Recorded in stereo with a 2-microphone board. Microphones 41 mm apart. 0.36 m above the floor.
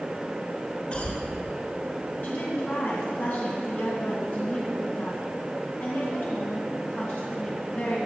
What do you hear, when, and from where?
0.9 s a cough: 30° left (ahead or behind), 1.2 m
2.2 s a woman speaking: 50° left (ahead or behind), 2.5 m